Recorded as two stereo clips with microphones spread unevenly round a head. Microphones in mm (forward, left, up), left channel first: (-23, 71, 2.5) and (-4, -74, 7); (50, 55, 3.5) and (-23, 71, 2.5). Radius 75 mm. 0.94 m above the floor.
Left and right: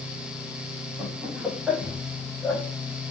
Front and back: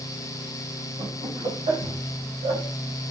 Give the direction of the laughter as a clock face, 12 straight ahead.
6 o'clock.